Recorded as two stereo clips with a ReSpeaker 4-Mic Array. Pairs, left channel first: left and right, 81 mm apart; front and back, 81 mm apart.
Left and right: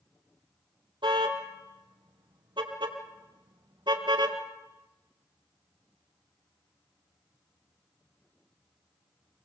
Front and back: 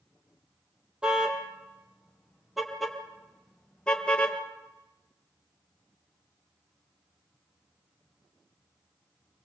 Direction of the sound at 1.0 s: 100° right.